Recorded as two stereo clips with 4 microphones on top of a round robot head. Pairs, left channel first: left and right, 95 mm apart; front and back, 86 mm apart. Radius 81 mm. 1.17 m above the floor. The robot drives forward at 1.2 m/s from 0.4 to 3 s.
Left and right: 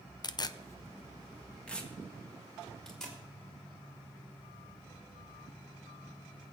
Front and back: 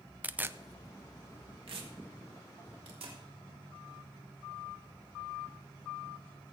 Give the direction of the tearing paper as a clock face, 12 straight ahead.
8 o'clock.